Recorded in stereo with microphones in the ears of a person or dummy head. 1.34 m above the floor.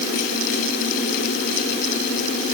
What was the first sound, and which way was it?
Only background noise.